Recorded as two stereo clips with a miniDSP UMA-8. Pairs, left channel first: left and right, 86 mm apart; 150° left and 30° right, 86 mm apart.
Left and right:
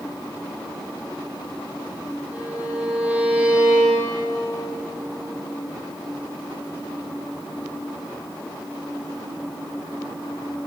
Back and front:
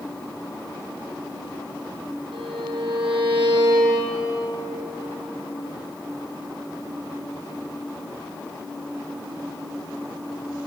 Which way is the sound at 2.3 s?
15° right.